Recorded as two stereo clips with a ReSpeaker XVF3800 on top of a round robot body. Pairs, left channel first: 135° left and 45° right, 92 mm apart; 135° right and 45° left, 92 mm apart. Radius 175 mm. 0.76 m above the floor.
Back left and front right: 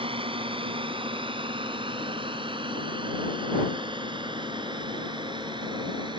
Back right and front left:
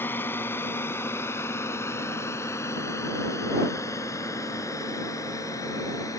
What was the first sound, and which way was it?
A drone, 65° right.